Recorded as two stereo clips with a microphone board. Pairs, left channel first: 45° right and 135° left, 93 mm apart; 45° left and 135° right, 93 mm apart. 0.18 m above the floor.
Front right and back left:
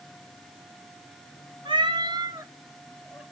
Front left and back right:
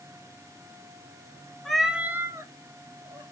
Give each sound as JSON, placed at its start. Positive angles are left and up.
{"t": 1.6, "sound": "a cat meowing", "azimuth_deg": 130, "distance_m": 0.8}